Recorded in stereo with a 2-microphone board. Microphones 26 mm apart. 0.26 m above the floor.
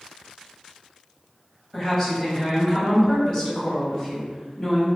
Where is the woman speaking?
20° left (ahead or behind), 1.5 m; by 4.9 s 30° left (ahead or behind), 1.7 m.